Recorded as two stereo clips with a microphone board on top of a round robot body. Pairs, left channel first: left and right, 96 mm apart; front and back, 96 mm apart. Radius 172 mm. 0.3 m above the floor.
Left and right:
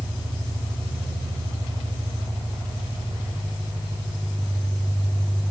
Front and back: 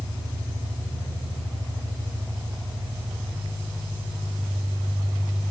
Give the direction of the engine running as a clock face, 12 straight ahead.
4 o'clock.